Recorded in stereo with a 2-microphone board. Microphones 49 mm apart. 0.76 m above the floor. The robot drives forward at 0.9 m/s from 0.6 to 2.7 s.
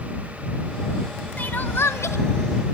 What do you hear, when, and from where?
1.4 s crying: 35° left (ahead or behind), 0.9 m; by 2.2 s 75° left (ahead or behind), 0.5 m